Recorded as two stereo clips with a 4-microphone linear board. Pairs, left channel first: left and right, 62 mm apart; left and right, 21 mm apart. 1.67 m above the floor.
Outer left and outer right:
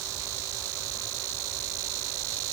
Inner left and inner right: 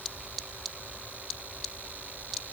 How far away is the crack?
No crack in this recording.